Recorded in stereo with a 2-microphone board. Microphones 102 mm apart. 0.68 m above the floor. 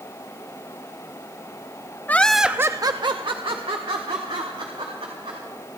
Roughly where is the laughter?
Centre.